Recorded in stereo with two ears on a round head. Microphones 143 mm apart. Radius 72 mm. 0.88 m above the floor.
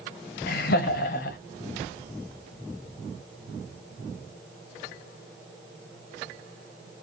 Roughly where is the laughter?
Left.